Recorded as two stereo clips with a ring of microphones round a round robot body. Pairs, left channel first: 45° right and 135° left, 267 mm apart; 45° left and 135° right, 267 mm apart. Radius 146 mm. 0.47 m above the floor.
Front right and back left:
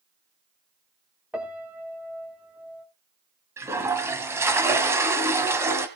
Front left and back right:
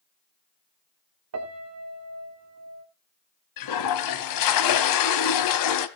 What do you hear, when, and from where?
1.3 s a piano: 140° right, 2 m
3.6 s a toilet flushing: 55° left, 1.3 m